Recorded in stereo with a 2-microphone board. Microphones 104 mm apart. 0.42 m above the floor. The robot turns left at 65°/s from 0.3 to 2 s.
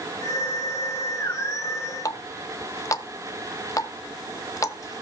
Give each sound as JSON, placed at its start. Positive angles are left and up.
{"t": 2.0, "sound": "a running tap", "side_deg": 30, "distance_m": 0.7}